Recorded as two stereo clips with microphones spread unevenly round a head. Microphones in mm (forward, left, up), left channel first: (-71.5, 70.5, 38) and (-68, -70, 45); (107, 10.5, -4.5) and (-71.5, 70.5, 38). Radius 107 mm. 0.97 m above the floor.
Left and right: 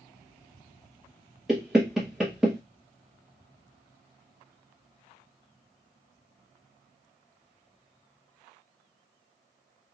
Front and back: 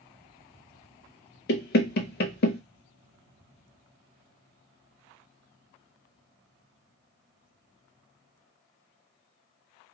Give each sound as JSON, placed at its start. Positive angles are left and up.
{"t": 1.5, "sound": "knocking", "azimuth_deg": 0, "distance_m": 0.6}